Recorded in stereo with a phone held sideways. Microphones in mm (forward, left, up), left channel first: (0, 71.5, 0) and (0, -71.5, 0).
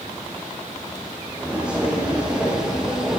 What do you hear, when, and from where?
1.4 s footsteps: 10° right (ahead or behind), 3 m; by 3.2 s 5° right (ahead or behind), 1.9 m